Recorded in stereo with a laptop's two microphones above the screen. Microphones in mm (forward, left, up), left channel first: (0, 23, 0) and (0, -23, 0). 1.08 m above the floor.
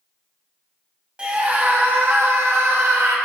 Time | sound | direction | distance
1.2 | a scream | 25° right (ahead or behind) | 1.4 m